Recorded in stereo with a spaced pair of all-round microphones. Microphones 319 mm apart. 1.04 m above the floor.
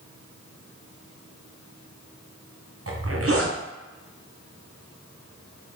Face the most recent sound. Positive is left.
turn(degrees=-50)  # may be behind; listen again after turning